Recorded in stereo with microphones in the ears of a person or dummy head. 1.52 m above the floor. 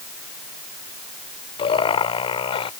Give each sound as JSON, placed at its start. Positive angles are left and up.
{"t": 1.6, "sound": "laughter", "side_deg": 35}